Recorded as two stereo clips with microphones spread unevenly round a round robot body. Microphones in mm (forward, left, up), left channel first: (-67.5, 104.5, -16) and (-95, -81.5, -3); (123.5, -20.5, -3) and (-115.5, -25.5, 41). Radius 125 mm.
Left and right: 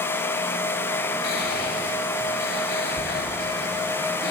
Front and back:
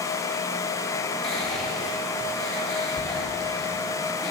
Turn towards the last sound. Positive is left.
turn(degrees=85)